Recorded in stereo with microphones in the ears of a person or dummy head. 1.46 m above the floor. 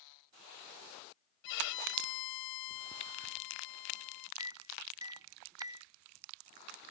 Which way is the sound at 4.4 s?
20° right (ahead or behind).